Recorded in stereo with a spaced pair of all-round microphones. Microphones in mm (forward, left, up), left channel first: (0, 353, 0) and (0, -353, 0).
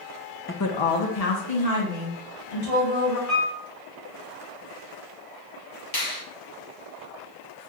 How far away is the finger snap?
About 1.4 m.